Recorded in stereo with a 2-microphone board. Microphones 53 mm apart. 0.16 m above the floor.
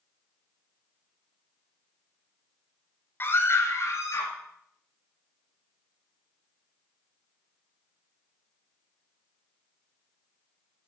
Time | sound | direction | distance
3.2 | a scream | 40° left (ahead or behind) | 1.8 m